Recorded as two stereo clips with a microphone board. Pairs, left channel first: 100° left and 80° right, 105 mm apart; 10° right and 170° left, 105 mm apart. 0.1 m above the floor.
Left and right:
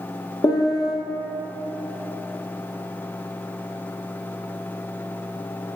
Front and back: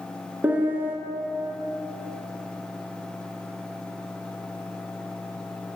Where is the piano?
105° left, 0.9 m.